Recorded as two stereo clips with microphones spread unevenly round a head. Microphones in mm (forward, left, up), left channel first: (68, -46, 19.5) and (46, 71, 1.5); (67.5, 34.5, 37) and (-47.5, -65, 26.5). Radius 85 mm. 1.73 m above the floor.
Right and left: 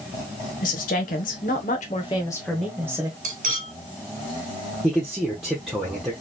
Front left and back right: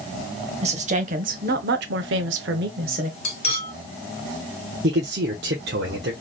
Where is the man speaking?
165° right, 1.0 m.